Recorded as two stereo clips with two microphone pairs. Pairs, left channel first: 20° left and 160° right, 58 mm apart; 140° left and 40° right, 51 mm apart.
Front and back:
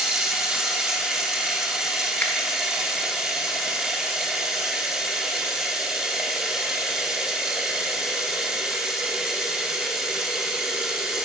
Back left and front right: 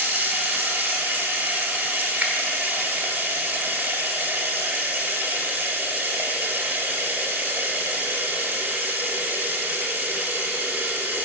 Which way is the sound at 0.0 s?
85° right.